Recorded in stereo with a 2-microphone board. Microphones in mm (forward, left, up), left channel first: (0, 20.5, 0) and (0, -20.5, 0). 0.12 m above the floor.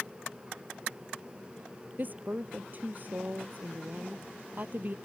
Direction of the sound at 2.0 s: 45° right (ahead or behind).